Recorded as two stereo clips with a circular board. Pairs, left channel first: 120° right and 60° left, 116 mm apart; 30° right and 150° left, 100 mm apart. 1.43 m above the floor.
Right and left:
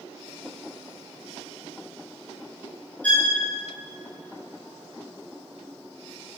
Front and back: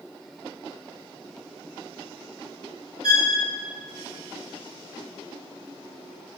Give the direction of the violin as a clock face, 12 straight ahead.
2 o'clock.